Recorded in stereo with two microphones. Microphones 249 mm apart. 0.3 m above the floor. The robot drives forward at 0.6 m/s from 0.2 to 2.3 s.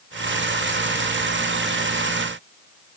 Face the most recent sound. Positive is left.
No sound to turn to.